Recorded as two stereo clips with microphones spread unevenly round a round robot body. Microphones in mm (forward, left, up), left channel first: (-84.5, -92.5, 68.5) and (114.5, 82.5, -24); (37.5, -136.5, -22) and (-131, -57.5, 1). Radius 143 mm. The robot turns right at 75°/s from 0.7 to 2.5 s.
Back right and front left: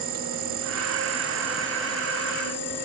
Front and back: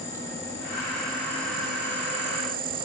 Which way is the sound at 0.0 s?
45° left.